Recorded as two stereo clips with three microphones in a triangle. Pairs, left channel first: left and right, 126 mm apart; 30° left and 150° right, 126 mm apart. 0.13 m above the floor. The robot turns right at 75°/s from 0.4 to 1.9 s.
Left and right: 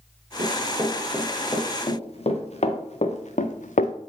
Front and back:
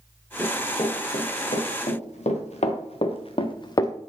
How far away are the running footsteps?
About 3.5 m.